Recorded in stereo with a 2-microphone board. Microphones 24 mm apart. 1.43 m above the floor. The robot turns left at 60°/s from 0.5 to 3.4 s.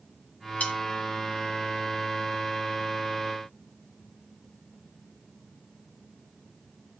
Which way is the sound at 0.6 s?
80° left.